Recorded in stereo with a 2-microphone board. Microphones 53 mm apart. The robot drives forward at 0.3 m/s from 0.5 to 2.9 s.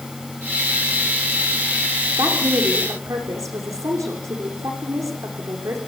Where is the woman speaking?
75° right (ahead or behind), 7.5 m.